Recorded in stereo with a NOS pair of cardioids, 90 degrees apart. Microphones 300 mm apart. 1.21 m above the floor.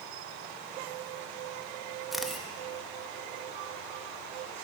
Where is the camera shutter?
Straight ahead, 1.0 m.